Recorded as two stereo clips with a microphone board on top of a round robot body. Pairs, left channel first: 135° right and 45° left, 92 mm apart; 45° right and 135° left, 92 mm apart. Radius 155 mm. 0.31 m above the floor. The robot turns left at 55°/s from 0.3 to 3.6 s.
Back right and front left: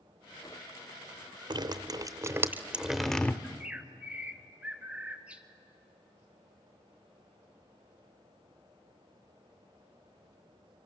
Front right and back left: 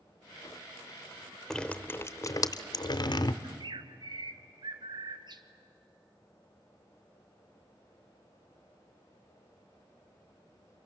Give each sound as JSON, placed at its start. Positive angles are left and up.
{"t": 1.5, "sound": "dripping", "azimuth_deg": 40, "distance_m": 0.9}
{"t": 3.4, "sound": "a bird", "azimuth_deg": 130, "distance_m": 1.2}